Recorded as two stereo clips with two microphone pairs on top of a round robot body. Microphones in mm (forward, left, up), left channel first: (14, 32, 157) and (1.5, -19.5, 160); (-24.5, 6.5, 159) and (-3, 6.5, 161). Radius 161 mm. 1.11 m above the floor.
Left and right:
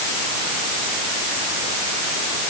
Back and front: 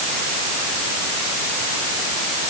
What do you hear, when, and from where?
Only background noise.